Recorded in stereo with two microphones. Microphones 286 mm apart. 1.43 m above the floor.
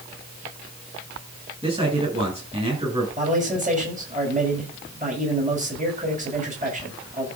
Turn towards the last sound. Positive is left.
turn(degrees=-30)  # may be behind; listen again after turning